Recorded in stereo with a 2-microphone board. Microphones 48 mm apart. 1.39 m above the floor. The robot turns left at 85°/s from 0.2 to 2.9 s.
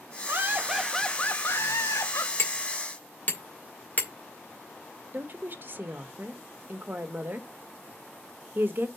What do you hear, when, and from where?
0.3 s laughter: 130° right, 1.6 m; by 2.3 s 60° left, 1.6 m
2.4 s hammering: 65° left (ahead or behind), 2 m; by 4.1 s 35° left (ahead or behind), 2 m
5.1 s a woman speaking: 45° right (ahead or behind), 1.5 m